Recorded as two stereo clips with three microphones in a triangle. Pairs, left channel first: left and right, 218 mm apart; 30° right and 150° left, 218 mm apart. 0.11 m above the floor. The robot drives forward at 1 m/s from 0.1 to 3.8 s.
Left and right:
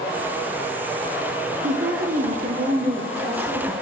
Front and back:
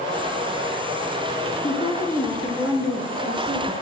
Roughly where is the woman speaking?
Right.